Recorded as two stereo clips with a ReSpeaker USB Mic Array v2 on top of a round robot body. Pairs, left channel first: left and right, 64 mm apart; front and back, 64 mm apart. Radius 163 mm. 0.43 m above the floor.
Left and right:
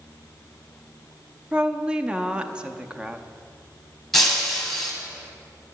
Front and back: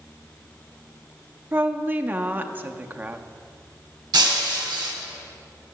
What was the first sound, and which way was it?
A woman speaking, 150° right.